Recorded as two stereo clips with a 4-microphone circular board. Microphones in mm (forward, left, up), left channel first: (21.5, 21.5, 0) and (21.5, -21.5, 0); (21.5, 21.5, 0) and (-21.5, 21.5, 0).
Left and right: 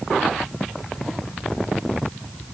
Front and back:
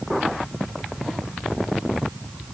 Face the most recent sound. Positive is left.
No sound to turn to.